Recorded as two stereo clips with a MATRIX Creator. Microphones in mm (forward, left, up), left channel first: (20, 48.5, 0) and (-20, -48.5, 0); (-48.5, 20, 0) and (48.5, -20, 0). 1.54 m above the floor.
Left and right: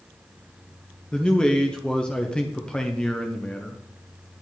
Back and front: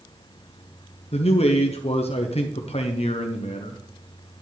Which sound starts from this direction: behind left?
A man speaking, at 1.1 s.